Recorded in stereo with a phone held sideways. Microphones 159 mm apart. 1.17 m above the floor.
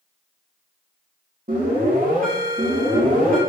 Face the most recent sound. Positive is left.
turn(degrees=-55)  # may be behind; listen again after turning